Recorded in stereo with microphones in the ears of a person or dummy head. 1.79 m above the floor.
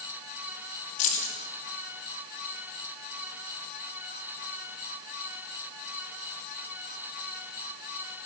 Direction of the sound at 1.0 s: 40° left (ahead or behind).